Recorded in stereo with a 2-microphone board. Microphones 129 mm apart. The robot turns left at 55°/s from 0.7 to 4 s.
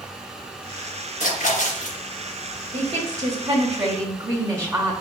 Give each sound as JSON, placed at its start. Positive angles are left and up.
{"t": 1.2, "sound": "a splash", "azimuth_deg": 100, "distance_m": 2.5}
{"t": 2.7, "sound": "a woman speaking", "azimuth_deg": -85, "distance_m": 1.1}